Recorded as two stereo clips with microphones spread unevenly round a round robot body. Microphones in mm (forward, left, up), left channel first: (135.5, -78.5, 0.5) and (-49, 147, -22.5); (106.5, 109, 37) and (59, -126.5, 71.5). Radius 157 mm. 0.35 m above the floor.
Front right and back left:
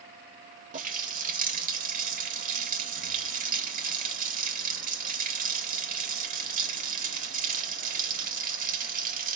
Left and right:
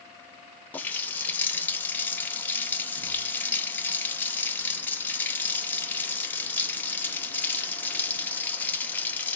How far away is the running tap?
About 0.5 m.